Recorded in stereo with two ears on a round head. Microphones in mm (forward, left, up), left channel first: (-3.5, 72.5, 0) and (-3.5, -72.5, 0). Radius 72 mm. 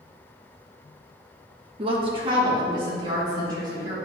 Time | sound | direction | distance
1.8 | a woman speaking | 35° right (ahead or behind) | 1.0 m